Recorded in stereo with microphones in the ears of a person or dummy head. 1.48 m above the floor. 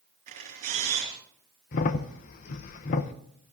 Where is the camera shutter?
40° right (ahead or behind), 4 m.